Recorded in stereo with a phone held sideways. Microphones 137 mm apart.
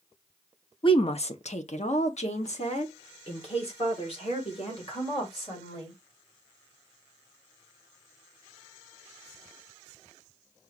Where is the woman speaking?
40° left (ahead or behind), 0.6 m; by 6.0 s 45° left (ahead or behind), 3 m.